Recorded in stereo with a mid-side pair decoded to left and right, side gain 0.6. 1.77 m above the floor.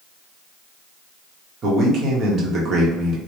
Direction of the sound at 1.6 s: 45° right.